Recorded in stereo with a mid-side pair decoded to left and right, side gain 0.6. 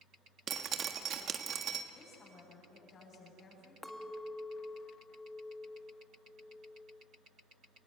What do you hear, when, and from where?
0.5 s dripping: 45° right, 1.4 m
1.9 s a woman speaking: 40° left, 8.5 m
3.8 s a clink: 5° left, 1.7 m